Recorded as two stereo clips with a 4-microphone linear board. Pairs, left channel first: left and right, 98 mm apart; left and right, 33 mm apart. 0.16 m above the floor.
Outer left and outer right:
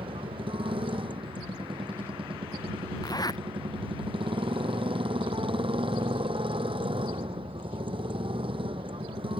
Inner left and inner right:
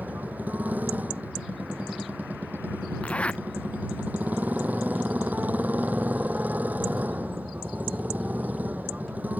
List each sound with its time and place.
0.0 s a motorcycle: 70° right (ahead or behind)
3.0 s a zipper: 45° left (ahead or behind)